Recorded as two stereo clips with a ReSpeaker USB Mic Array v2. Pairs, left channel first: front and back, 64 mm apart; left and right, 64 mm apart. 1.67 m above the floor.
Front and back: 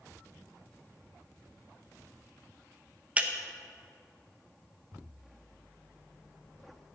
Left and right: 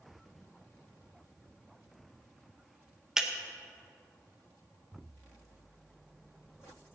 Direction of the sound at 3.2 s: 160° right.